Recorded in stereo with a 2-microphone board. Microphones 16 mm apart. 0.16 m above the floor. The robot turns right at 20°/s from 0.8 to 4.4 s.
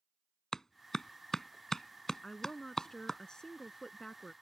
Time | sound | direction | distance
0.5 | a clap | 30° left (ahead or behind) | ?
2.2 | a woman speaking | 50° left | ?